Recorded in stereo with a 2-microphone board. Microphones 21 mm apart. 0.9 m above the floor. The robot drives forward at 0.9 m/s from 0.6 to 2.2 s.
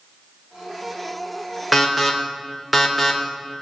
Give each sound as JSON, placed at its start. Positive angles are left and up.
{"t": 1.7, "sound": "an alarm", "side_deg": 0, "distance_m": 3.5}